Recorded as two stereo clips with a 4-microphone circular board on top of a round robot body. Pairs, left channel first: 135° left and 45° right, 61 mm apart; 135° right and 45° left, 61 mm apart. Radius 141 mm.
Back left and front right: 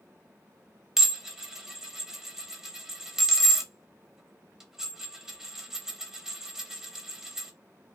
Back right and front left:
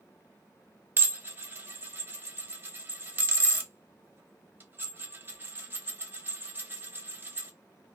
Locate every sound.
1.0 s dishes clattering: 30° left, 0.9 m